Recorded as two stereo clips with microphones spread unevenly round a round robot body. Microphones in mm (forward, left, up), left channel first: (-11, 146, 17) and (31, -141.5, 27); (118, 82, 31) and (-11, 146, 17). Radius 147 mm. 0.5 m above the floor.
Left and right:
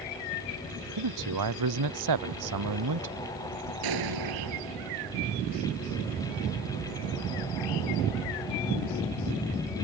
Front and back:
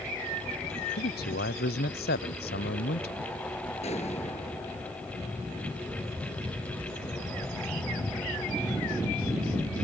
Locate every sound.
1.0 s a man speaking: 60° right; by 3.2 s 55° right
3.8 s an explosion: 95° right